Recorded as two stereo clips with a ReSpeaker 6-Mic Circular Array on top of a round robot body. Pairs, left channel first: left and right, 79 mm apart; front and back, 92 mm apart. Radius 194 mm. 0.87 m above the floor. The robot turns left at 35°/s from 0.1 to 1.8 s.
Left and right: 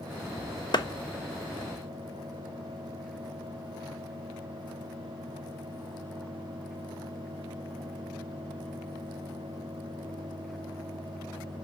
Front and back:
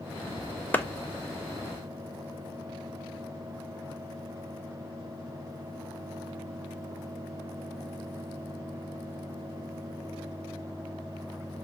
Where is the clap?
70° left, 0.9 m; by 0.8 s 65° left, 0.9 m.